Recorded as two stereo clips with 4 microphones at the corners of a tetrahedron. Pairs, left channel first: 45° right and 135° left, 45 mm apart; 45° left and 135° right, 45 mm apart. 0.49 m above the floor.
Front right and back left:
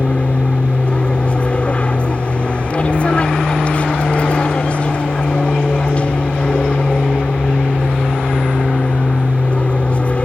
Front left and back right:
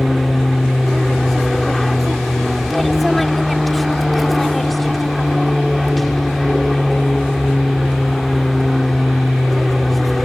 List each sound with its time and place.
0.0 s an aircraft: 45° right